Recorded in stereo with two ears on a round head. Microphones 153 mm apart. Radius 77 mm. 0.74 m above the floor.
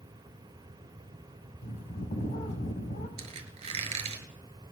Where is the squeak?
35° right (ahead or behind), 2 m.